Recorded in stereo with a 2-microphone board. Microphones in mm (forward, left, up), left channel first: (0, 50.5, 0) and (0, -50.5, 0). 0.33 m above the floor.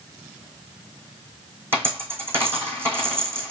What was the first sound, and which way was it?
A dropped coin, 25° right (ahead or behind).